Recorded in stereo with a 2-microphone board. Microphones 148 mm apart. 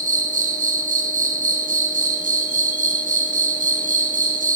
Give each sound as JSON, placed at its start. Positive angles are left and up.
{"t": 0.0, "sound": "an insect", "side_deg": -60, "distance_m": 0.9}